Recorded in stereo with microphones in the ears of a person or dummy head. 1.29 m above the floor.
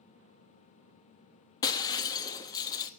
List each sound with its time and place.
1.6 s breaking glass: 25° left (ahead or behind), 1.0 m